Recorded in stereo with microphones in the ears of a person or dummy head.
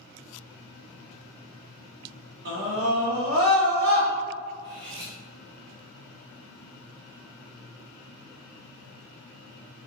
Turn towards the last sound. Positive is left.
turn(degrees=-25)  # may be behind; listen again after turning